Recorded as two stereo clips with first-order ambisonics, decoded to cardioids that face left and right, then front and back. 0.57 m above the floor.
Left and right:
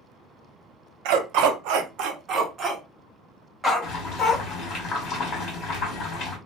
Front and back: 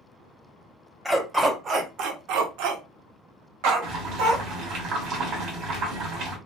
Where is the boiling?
140° left, 1.6 m.